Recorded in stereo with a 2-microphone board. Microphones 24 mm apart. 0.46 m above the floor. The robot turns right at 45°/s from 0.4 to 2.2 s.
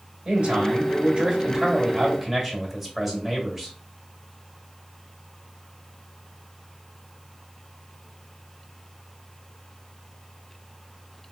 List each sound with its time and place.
0.2 s a man speaking: 85° right, 1.5 m; by 3.7 s 5° right, 1.5 m